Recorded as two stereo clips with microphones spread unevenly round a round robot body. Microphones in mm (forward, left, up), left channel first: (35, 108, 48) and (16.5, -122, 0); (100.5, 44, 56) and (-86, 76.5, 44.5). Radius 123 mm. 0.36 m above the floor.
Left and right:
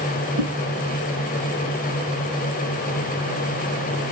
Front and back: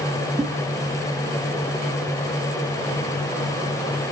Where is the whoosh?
105° right, 1.9 m.